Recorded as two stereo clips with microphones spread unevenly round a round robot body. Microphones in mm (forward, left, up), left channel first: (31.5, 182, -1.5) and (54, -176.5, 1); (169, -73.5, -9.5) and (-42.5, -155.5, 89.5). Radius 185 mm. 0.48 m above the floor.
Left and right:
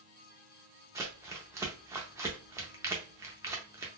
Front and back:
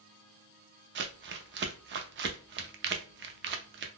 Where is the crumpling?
155° right, 0.5 m.